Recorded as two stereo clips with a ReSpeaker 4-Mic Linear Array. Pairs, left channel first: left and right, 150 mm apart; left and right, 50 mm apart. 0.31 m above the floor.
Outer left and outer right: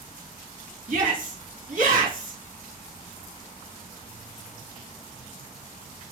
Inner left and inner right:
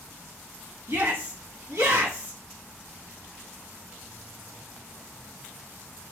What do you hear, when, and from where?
0.9 s a shout: 65° right (ahead or behind), 2 m